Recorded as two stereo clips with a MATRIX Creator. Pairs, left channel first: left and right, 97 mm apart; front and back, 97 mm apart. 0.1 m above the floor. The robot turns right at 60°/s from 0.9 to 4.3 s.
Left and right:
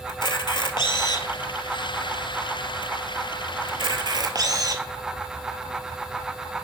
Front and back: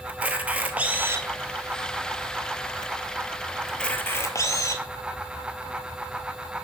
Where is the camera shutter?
110° left, 0.7 m; by 4.8 s 50° right, 0.7 m.